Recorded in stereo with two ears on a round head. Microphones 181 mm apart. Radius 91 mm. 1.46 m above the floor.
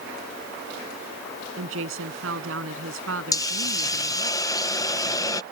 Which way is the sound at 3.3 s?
20° left (ahead or behind).